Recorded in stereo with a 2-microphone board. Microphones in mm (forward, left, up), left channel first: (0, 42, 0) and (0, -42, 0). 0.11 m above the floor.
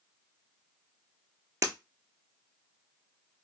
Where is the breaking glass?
35° right (ahead or behind), 0.6 m.